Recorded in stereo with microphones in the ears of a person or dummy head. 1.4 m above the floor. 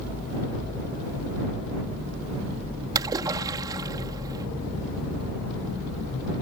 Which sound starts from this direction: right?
A splash, at 3.0 s.